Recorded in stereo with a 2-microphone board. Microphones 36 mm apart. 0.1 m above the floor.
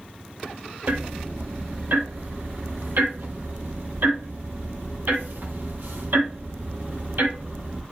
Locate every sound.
0.9 s ticking: 65° right (ahead or behind), 1.8 m